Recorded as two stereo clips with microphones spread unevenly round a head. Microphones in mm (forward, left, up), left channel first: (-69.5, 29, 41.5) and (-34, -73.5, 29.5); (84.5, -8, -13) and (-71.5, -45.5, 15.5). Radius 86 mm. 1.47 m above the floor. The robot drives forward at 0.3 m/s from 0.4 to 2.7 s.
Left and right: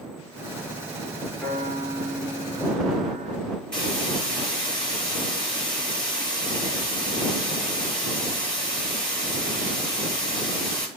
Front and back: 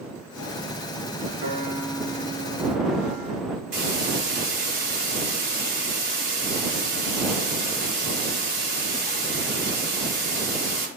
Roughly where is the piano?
Behind.